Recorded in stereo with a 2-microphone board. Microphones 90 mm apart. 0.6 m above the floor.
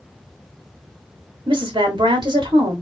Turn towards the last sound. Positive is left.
turn(degrees=-55)  # may be behind; listen again after turning